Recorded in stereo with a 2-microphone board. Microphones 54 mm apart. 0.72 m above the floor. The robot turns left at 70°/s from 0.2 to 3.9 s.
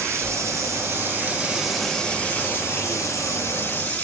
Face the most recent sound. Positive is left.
turn(degrees=30)